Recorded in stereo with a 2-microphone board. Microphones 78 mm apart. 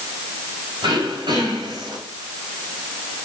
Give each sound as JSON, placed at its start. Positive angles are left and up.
{"t": 0.8, "sound": "throat clearing", "side_deg": -85, "distance_m": 3.5}